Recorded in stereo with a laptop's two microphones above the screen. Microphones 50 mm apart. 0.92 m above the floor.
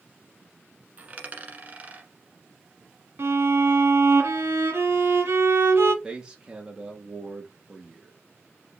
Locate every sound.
1.0 s a dropped coin: 30° right (ahead or behind), 1.3 m
3.2 s a violin: 60° right (ahead or behind), 1.5 m
6.0 s a man speaking: 15° right (ahead or behind), 1.5 m